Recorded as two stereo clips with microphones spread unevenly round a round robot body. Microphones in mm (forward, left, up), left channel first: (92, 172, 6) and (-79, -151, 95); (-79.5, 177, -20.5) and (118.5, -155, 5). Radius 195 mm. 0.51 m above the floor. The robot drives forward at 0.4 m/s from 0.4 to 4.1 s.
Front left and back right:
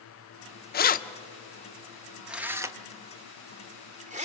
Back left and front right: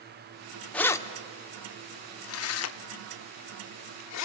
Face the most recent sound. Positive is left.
turn(degrees=165)